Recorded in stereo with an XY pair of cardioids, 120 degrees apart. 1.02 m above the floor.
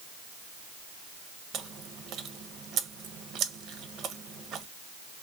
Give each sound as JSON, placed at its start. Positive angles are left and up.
{"t": 1.5, "sound": "chewing", "azimuth_deg": -60, "distance_m": 0.5}